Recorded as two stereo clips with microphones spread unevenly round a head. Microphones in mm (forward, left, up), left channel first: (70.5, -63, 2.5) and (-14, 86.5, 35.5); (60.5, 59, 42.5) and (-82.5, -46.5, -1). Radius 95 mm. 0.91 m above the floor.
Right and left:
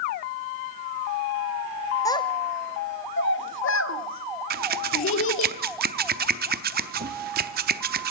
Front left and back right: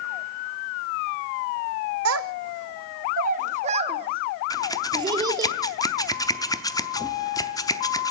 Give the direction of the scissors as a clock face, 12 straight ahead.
9 o'clock.